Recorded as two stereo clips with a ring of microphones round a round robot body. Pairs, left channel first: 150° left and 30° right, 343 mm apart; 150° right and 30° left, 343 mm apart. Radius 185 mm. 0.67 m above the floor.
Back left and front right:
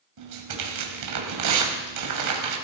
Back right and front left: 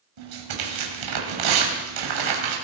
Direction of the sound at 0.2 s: 5° left.